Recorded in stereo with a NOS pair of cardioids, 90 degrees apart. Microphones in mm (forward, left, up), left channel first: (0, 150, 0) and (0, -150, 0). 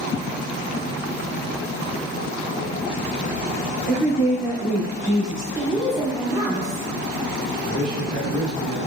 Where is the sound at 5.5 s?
10° right, 1.9 m.